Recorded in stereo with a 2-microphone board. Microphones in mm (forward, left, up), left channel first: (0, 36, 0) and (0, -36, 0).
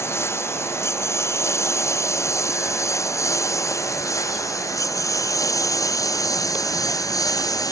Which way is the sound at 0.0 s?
35° left (ahead or behind).